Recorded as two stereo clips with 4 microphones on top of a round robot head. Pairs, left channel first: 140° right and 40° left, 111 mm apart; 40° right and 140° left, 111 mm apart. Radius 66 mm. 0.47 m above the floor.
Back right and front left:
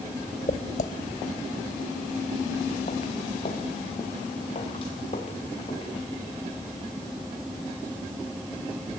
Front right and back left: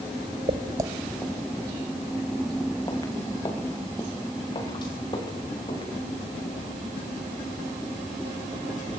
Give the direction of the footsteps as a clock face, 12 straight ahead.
6 o'clock.